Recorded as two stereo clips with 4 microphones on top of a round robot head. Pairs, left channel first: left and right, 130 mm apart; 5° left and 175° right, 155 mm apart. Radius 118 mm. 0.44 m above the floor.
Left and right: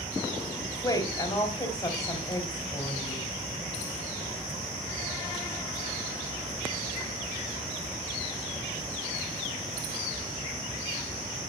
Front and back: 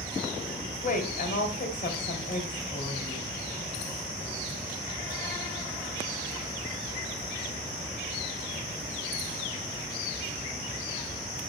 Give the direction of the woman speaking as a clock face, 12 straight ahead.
11 o'clock.